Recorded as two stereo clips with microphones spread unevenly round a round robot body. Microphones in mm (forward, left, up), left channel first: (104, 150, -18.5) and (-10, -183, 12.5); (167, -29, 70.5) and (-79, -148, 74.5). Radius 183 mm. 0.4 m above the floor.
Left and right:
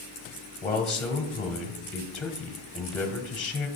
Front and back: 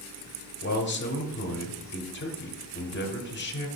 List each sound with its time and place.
0.6 s a man speaking: 10° right, 1.2 m